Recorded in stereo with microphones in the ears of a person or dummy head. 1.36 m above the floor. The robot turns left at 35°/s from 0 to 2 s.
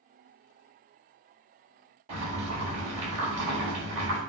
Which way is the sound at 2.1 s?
35° right (ahead or behind).